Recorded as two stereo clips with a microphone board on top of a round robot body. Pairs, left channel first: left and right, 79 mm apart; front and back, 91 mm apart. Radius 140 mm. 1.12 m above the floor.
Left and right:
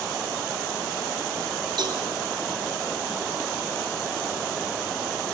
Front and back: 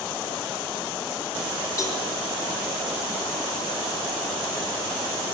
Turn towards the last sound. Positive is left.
turn(degrees=-55)